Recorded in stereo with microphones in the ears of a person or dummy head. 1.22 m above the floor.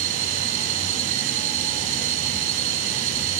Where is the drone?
40° right (ahead or behind).